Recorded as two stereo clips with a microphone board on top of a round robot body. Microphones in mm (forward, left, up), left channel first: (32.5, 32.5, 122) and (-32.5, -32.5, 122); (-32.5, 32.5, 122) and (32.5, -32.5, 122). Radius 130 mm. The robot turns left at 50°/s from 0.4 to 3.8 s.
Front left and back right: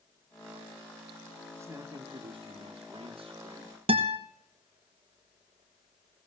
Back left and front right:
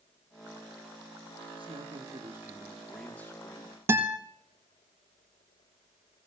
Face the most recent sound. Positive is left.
turn(degrees=-110)